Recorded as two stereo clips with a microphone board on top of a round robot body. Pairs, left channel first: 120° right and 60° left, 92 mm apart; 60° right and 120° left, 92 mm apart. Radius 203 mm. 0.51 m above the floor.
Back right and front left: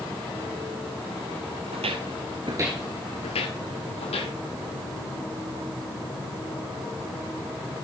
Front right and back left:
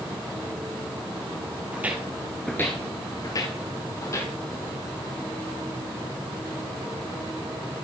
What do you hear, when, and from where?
1.7 s footsteps: 45° left, 1.1 m; by 4.3 s 120° right, 1.6 m